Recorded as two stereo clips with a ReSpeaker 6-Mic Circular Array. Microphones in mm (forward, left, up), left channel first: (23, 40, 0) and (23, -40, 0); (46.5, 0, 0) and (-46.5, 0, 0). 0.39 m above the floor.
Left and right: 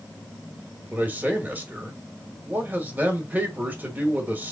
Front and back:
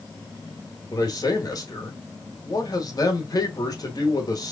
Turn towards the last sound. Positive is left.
turn(degrees=-25)